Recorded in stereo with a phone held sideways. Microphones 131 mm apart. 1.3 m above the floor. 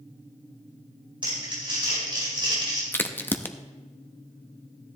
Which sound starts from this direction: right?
Crumpling, at 1.2 s.